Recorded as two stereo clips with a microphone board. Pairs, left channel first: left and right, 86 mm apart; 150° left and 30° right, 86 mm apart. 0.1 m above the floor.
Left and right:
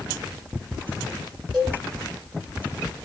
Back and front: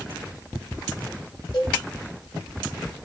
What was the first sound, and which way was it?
A cowbell, 175° right.